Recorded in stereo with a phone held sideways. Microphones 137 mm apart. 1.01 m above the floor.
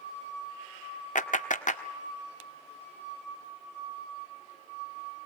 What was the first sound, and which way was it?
A clap, 65° left (ahead or behind).